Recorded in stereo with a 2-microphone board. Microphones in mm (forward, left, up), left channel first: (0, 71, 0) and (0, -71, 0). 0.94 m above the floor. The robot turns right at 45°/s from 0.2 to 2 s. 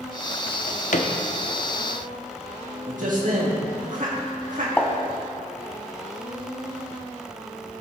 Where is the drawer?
80° left, 0.9 m; by 1.1 s 55° left (ahead or behind), 0.9 m.